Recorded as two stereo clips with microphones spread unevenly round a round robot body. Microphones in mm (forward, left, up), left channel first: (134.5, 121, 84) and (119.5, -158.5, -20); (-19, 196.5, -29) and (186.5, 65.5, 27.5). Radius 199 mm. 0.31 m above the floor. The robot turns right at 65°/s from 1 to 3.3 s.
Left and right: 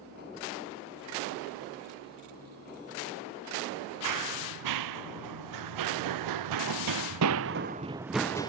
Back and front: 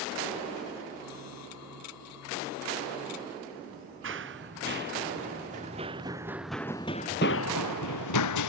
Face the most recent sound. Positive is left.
turn(degrees=165)